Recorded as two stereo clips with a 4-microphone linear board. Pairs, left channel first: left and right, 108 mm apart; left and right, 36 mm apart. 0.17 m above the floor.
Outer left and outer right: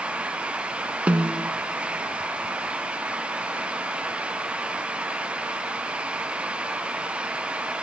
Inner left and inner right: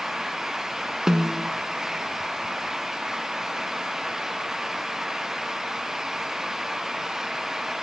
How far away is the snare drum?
About 0.6 m.